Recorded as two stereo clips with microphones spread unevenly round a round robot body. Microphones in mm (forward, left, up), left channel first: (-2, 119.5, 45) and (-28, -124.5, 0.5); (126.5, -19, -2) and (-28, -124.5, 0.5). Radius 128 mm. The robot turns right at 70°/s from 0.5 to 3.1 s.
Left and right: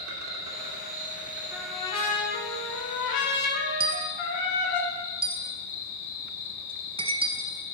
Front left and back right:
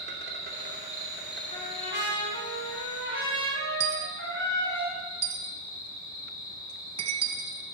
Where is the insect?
115° right, 2.5 m; by 7.7 s 65° left, 2.5 m.